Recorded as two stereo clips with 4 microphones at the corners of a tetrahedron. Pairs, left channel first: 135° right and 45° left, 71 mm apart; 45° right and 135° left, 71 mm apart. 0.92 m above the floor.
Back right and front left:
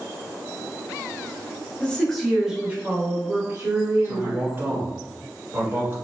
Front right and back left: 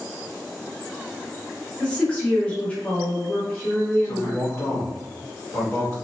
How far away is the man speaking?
About 1.4 m.